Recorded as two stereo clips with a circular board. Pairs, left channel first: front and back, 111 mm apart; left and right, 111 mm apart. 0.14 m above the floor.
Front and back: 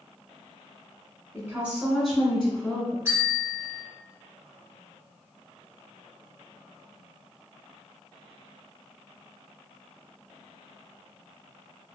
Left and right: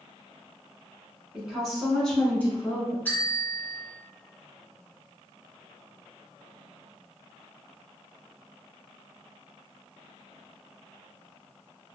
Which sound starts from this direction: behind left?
A bell, at 3.0 s.